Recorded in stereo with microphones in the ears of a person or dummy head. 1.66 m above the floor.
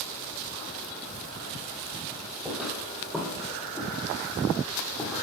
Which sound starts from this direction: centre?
Footsteps, at 2.5 s.